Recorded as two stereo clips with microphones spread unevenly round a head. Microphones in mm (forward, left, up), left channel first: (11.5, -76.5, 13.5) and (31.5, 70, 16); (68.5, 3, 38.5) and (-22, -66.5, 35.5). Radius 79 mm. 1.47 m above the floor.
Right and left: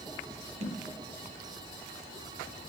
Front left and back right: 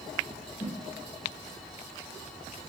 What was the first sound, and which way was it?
A whoosh, 60° left.